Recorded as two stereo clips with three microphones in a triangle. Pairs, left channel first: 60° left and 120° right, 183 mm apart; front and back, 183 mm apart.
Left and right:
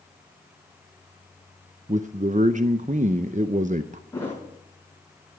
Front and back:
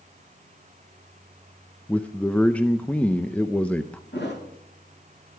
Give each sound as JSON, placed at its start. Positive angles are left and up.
{"t": 1.9, "sound": "a man speaking", "azimuth_deg": -80, "distance_m": 0.5}
{"t": 4.1, "sound": "a thud", "azimuth_deg": -15, "distance_m": 5.5}